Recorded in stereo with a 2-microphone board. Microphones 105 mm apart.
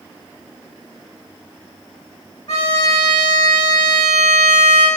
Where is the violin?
80° left, 5 m.